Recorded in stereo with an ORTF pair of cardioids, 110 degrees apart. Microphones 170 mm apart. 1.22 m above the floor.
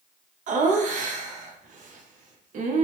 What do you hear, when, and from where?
0.5 s laughter: 55° right, 0.8 m